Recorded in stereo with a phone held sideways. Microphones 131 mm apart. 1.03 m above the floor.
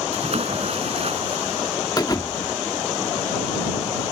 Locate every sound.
0.1 s a splash: 55° right (ahead or behind)
2.0 s a thud: 30° left (ahead or behind)